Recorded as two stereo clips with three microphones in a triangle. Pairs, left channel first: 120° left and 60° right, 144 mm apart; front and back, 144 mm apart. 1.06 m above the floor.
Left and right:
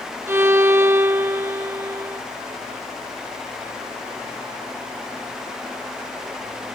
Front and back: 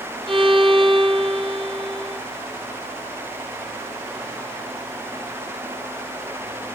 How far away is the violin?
About 0.6 m.